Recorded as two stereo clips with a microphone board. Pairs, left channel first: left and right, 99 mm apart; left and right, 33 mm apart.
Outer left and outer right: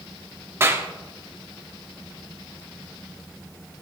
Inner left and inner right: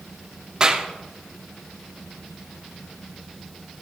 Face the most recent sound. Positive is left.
turn(degrees=-25)  # may be behind; listen again after turning